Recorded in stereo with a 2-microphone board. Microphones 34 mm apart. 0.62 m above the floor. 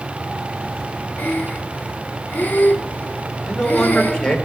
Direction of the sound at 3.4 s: 20° left (ahead or behind).